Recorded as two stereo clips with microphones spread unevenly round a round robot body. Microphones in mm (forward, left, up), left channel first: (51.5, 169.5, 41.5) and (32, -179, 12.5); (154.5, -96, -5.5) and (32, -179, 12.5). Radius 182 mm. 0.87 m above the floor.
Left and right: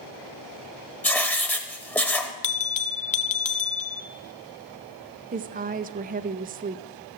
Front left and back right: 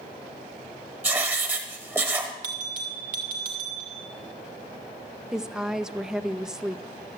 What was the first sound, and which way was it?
Writing, 160° left.